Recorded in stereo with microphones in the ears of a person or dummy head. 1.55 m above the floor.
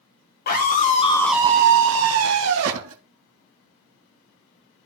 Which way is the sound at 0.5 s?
45° left (ahead or behind).